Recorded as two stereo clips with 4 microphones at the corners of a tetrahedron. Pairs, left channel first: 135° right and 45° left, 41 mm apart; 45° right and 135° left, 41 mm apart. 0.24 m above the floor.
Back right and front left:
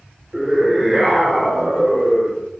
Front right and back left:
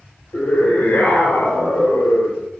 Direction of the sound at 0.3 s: 40° right.